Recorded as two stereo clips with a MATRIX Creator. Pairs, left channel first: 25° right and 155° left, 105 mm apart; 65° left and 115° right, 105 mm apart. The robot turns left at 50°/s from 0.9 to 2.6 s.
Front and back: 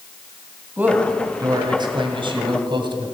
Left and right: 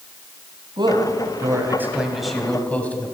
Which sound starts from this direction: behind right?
A man speaking, at 0.8 s.